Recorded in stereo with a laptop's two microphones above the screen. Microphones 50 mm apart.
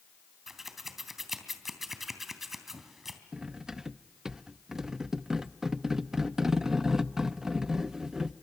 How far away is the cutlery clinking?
About 0.5 m.